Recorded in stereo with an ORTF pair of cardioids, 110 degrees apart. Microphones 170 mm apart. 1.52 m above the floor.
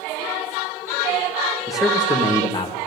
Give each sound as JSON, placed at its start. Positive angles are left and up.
{"t": 1.7, "sound": "a man speaking", "azimuth_deg": -5, "distance_m": 1.1}